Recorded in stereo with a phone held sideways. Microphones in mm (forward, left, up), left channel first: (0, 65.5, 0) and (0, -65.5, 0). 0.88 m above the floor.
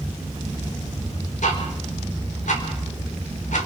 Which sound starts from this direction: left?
Ticking, at 1.4 s.